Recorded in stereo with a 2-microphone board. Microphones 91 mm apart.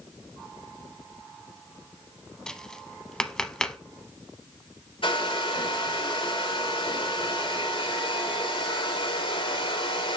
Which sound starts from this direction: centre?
Tapping, at 2.5 s.